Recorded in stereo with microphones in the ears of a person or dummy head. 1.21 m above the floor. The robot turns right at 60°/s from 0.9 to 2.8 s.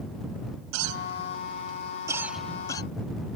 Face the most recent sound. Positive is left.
turn(degrees=25)  # may be behind; listen again after turning